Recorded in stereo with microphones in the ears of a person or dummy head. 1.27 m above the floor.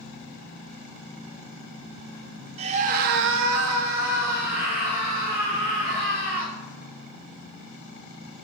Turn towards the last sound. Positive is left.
turn(degrees=-25)  # may be behind; listen again after turning